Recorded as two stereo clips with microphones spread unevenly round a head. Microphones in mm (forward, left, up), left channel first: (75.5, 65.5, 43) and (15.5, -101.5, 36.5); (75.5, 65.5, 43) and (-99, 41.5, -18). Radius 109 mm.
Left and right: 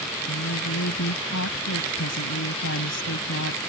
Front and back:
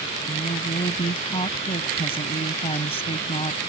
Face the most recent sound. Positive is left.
turn(degrees=65)